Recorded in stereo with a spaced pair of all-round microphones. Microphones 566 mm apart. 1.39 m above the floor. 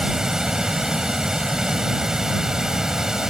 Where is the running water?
Centre (ahead or behind).